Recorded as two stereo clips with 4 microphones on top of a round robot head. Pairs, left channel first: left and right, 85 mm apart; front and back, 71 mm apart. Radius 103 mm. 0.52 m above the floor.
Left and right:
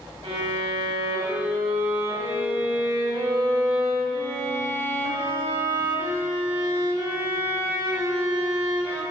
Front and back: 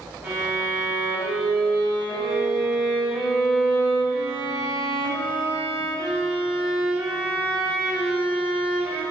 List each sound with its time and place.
0.2 s a violin: 105° right, 4.5 m